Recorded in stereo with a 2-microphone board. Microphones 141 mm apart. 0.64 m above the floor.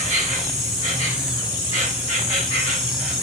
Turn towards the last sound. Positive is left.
turn(degrees=50)  # may be behind; listen again after turning